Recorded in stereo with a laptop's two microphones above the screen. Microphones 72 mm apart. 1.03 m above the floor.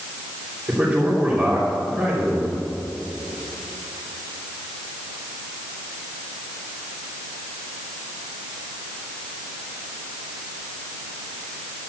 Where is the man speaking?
15° right (ahead or behind), 3 m.